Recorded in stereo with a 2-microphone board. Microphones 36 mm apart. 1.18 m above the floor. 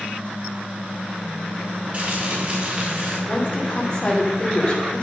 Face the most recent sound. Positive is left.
turn(degrees=30)  # may be behind; listen again after turning